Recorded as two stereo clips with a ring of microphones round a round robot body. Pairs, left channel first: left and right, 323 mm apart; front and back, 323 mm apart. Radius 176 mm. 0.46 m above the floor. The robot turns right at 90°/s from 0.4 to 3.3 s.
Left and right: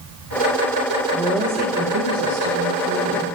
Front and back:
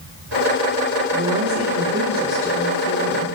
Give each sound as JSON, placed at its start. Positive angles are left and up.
{"t": 1.1, "sound": "a woman speaking", "azimuth_deg": 155, "distance_m": 1.9}